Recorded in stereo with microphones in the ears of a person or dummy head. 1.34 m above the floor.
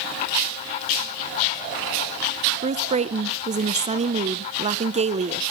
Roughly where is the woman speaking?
Right.